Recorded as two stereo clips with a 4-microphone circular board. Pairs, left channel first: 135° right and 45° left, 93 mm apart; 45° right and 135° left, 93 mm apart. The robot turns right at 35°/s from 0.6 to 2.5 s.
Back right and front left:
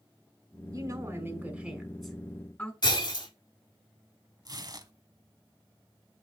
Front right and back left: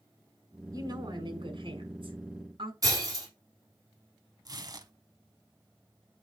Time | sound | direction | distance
0.7 | a woman speaking | 90° left | 2.5 m
2.8 | breaking glass | 175° right | 4 m
4.5 | tearing paper | 90° left | 0.9 m